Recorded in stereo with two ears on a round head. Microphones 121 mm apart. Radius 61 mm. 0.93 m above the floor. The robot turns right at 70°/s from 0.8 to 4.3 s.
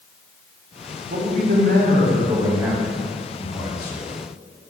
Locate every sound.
1.1 s a man speaking: 120° right, 2.5 m; by 4.0 s 85° left, 2.5 m